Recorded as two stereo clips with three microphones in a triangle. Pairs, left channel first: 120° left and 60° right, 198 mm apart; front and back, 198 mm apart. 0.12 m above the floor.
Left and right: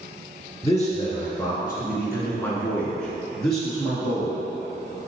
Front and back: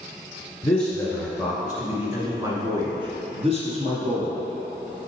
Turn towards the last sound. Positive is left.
turn(degrees=-145)